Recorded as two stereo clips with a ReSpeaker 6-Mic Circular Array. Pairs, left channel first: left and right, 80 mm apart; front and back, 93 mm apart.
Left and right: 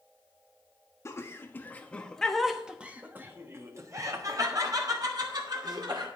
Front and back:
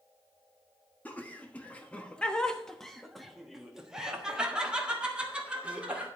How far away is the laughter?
About 1.3 m.